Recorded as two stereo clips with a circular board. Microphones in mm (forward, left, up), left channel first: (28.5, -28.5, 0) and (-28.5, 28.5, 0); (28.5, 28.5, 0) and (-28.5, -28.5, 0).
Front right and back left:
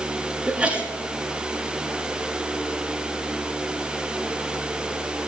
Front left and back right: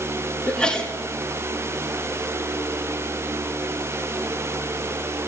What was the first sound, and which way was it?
A sneeze, 95° left.